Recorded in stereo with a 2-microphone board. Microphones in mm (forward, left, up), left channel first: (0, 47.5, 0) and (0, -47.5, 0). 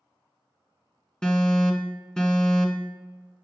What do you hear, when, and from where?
1.2 s an alarm: 10° left (ahead or behind), 1.1 m